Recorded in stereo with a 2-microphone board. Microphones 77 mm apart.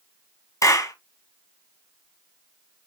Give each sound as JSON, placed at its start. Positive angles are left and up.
{"t": 0.6, "sound": "a clap", "side_deg": 45, "distance_m": 2.0}